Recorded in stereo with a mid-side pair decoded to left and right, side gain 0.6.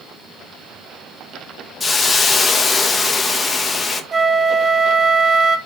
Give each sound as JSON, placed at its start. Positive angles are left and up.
{"t": 1.8, "sound": "a hiss", "azimuth_deg": 25, "distance_m": 1.2}
{"t": 4.1, "sound": "a flute", "azimuth_deg": -20, "distance_m": 1.1}